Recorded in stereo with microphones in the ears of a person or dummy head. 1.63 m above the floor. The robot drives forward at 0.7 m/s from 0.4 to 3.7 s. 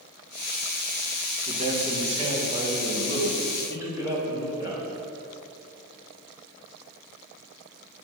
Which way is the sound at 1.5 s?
50° right (ahead or behind).